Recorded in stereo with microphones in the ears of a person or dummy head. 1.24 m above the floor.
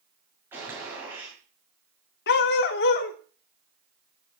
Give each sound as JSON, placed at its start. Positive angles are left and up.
{"t": 0.5, "sound": "a gunshot", "side_deg": -10, "distance_m": 7.5}
{"t": 2.3, "sound": "a dog barking", "side_deg": 55, "distance_m": 1.5}